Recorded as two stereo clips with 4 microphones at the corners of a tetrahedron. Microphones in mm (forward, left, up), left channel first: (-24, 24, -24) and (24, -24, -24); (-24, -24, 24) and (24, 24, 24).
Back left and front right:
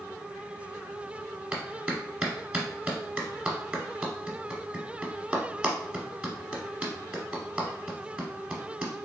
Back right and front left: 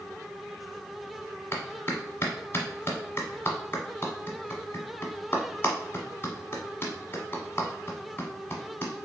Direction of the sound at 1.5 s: 110° right.